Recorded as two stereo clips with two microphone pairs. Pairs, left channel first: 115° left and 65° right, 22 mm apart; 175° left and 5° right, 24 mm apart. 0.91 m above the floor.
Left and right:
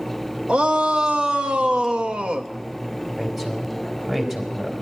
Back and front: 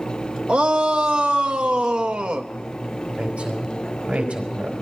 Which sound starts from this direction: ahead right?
A shout, at 0.5 s.